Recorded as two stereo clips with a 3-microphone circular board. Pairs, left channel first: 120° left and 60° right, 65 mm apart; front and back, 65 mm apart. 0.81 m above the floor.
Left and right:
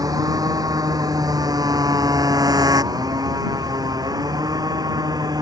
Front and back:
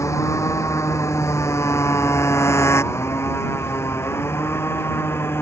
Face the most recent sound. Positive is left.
turn(degrees=-50)